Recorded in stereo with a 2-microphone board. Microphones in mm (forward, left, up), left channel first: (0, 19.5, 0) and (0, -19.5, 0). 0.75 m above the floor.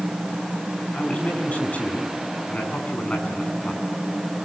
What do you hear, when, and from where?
0.9 s a man speaking: 35° left (ahead or behind), 7.5 m